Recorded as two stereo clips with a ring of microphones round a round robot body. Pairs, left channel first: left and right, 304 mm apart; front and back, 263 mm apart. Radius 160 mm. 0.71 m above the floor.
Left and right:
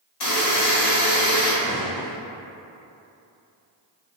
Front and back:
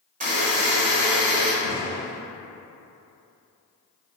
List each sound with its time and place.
0.2 s a buzzer: 115° left, 1.5 m
1.6 s a gunshot: straight behind, 0.8 m